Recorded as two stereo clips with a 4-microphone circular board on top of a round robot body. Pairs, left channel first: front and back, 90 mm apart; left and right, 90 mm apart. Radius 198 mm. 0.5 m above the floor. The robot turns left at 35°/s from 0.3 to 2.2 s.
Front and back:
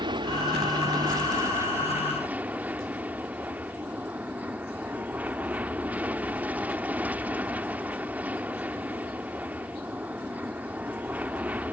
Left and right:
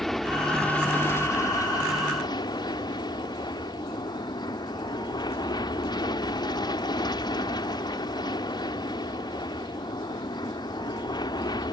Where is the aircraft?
175° left; by 11.7 s 110° left.